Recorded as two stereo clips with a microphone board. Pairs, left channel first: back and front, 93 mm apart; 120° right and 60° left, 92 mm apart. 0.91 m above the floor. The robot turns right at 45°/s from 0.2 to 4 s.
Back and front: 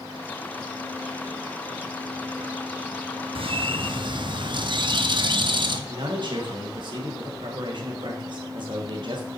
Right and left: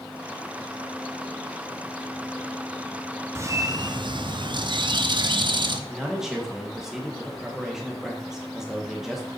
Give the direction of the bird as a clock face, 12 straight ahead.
12 o'clock.